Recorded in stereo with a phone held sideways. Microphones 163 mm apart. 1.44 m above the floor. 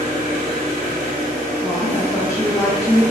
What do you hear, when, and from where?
0.0 s an engine running: 40° right (ahead or behind), 1.1 m
1.6 s a woman speaking: 15° left (ahead or behind), 0.9 m